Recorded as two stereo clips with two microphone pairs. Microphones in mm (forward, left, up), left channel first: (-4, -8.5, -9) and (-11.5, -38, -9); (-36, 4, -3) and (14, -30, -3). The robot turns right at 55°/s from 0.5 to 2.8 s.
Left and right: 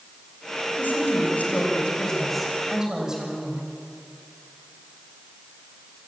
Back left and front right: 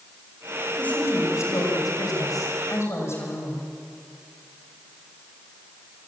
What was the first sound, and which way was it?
A woman speaking, 75° left.